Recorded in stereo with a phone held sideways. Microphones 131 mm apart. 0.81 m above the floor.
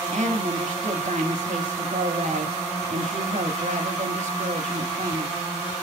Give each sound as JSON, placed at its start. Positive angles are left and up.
{"t": 0.1, "sound": "a woman speaking", "side_deg": -65, "distance_m": 1.9}